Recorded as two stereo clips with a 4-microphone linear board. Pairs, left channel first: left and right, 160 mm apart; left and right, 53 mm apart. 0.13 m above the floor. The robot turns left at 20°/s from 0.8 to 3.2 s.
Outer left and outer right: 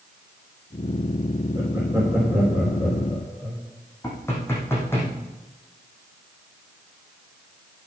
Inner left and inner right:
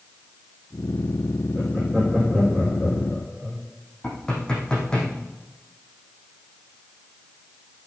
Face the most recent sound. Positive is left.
turn(degrees=15)  # may be behind; listen again after turning